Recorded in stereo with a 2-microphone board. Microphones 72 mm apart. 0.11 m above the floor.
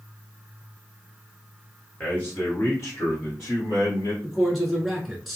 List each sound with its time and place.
2.0 s a man speaking: 20° left (ahead or behind), 1.4 m; by 4.1 s 55° left (ahead or behind), 2.5 m
4.2 s a man speaking: centre (ahead or behind), 1.1 m